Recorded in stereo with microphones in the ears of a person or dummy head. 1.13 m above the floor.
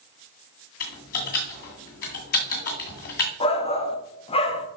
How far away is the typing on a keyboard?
About 1.9 m.